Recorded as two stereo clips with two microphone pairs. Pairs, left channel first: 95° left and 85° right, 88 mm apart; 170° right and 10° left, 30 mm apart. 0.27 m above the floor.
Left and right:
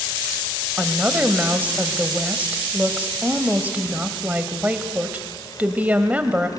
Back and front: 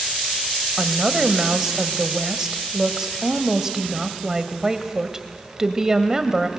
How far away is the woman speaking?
About 1.2 m.